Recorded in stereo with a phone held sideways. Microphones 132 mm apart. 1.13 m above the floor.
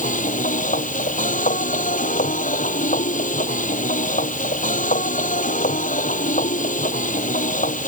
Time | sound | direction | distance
0.0 | a machine running | 80° left | ?